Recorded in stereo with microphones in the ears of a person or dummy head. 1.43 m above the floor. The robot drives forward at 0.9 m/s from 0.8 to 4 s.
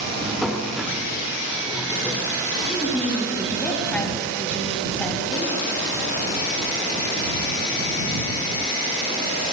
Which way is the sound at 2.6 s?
5° left (ahead or behind).